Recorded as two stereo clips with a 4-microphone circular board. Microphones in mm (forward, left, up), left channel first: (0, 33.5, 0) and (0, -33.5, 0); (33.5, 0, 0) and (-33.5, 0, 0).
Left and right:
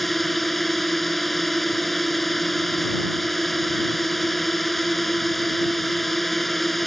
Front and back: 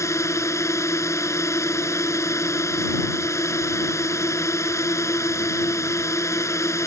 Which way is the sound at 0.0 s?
5° left.